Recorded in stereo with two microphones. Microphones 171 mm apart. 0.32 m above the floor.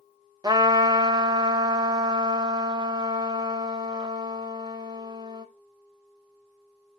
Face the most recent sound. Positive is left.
turn(degrees=-25)  # may be behind; listen again after turning